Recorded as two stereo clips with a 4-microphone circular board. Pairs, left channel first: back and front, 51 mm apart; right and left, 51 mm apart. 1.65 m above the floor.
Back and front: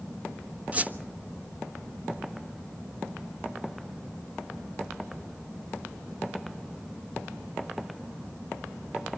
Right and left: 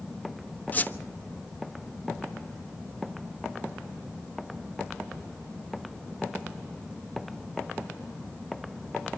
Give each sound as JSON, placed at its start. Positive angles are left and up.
{"t": 0.7, "sound": "a squeak", "azimuth_deg": -45, "distance_m": 1.2}